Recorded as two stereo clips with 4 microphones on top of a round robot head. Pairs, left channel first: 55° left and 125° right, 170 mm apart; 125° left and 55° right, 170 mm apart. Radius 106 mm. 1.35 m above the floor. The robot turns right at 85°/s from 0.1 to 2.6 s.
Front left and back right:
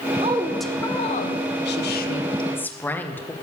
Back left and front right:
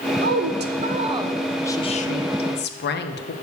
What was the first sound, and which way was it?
A woman speaking, 70° right.